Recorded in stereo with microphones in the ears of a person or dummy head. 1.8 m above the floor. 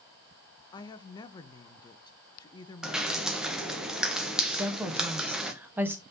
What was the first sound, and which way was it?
A woman speaking, 25° left (ahead or behind).